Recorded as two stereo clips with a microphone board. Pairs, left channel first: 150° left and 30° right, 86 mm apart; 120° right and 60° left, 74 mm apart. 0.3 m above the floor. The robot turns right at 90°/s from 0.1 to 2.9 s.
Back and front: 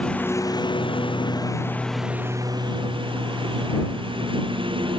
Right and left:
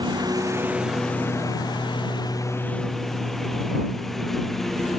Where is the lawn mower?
75° left; by 5.0 s 35° right.